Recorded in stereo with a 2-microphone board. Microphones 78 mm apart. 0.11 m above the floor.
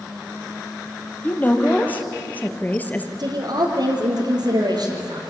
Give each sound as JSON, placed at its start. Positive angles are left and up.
{"t": 1.2, "sound": "a woman speaking", "side_deg": 20, "distance_m": 3.0}
{"t": 3.2, "sound": "a woman speaking", "side_deg": -60, "distance_m": 3.5}